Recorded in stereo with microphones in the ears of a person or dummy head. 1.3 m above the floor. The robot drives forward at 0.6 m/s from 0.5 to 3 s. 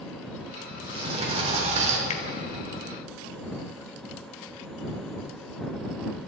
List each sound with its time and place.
0.7 s a sliding door: 30° right (ahead or behind), 4 m; by 2.0 s 40° right (ahead or behind), 3.5 m
2.1 s a finger snap: 45° left (ahead or behind), 1.4 m